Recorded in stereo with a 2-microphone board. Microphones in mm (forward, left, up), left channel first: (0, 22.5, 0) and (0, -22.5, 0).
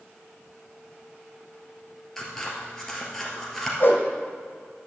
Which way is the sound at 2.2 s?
5° left (ahead or behind).